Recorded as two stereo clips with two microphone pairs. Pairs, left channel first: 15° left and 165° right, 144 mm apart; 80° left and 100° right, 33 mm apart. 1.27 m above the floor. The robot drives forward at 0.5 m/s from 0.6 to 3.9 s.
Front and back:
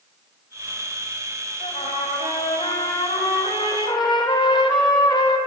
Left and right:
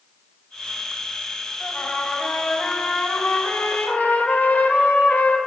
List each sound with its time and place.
1.6 s a trumpet: 35° left, 2 m; by 5.4 s 65° left, 1.6 m